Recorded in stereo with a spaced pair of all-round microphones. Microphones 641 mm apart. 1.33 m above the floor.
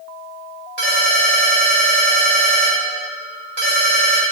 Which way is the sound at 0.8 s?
70° right (ahead or behind).